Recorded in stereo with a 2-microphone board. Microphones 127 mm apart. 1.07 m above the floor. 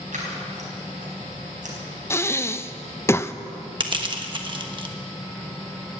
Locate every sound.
0.1 s scissors: 80° right, 4.5 m
2.1 s breathing: 20° left (ahead or behind), 0.5 m
3.8 s crushing: 40° right (ahead or behind), 1.2 m